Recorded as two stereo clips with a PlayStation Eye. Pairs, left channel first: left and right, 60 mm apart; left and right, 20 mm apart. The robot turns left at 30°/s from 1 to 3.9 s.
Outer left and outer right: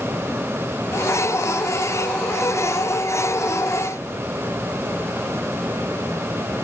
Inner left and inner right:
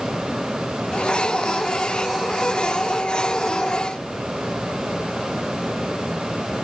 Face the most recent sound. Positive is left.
No sound to turn to.